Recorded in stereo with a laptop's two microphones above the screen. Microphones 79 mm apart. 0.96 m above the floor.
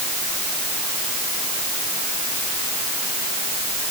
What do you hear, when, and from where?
Only background noise.